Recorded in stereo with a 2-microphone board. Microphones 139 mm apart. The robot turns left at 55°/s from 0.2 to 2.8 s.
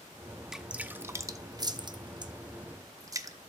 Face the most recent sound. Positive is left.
turn(degrees=-25)  # may be behind; listen again after turning